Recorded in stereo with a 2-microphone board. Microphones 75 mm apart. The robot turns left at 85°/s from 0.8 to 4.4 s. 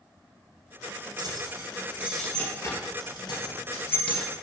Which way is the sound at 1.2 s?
70° right (ahead or behind).